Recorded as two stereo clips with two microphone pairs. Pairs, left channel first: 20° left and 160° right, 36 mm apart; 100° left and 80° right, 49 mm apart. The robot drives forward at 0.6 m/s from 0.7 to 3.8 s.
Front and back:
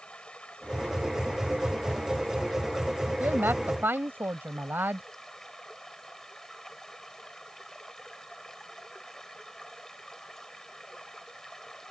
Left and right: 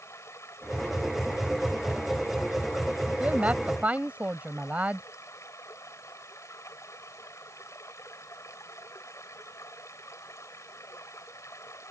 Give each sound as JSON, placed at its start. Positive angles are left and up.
{"t": 0.0, "sound": "running water", "azimuth_deg": 80}
{"t": 3.2, "sound": "a woman speaking", "azimuth_deg": -140}